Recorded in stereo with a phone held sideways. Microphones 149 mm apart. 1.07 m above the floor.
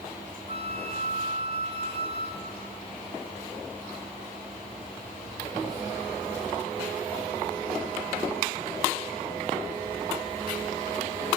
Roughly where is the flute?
Left.